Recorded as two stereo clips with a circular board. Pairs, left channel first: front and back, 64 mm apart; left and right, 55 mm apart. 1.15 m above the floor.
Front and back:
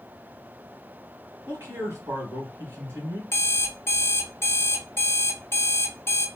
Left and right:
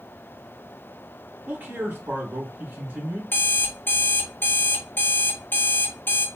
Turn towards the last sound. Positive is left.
turn(degrees=45)